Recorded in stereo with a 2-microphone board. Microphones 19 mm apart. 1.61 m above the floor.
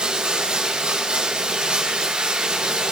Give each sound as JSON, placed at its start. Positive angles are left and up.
{"t": 0.0, "sound": "running water", "side_deg": -80, "distance_m": 7.0}